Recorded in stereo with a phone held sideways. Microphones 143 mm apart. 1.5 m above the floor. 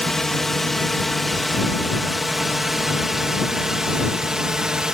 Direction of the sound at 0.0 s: 5° left (ahead or behind).